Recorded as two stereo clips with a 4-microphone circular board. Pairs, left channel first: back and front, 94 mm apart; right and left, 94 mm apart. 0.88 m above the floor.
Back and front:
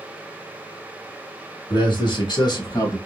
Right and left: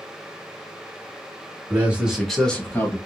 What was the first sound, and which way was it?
A man speaking, 155° left.